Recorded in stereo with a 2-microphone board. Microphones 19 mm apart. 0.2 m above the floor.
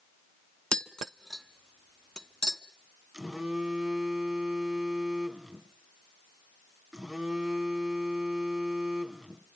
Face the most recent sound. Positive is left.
turn(degrees=-35)  # may be behind; listen again after turning